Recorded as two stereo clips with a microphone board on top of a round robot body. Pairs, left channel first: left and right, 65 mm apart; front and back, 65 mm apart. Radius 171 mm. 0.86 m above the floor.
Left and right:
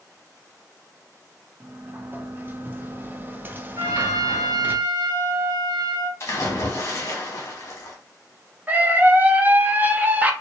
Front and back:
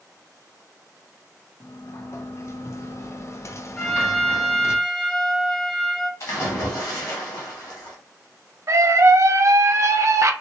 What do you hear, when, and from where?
1.6 s a sliding door: 35° right, 0.6 m
3.8 s a trumpet: 80° right, 0.8 m
6.2 s a splash: 40° left, 0.9 m
8.7 s a scream: 150° right, 0.7 m